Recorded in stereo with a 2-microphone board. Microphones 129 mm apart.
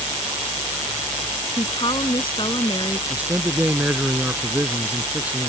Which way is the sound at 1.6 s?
40° left (ahead or behind).